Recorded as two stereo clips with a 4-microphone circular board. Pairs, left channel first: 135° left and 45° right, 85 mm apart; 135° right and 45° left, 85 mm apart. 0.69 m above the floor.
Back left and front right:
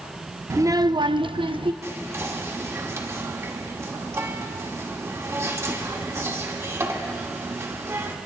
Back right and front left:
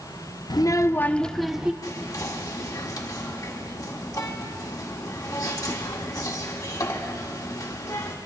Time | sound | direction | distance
0.5 | a child speaking | 100° right | 0.5 m
1.8 | whispering | 95° right | 1.7 m